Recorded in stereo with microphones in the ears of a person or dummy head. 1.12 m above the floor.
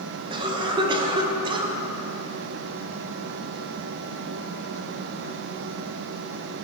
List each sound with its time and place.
0.3 s a cough: 25° right (ahead or behind), 1.1 m